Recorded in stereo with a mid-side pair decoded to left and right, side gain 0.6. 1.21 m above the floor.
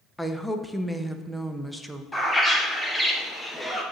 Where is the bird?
10° left, 1.2 m.